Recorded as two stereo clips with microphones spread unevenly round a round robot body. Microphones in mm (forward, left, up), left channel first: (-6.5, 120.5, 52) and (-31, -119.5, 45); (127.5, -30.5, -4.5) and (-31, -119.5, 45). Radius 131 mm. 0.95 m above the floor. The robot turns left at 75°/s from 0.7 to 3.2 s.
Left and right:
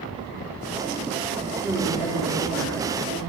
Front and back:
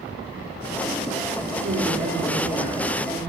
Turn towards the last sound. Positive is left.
turn(degrees=55)